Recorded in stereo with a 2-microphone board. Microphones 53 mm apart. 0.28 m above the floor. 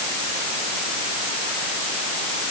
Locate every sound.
Only background noise.